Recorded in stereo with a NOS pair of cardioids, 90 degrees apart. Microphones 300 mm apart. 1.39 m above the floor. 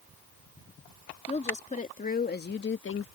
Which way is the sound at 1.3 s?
20° left.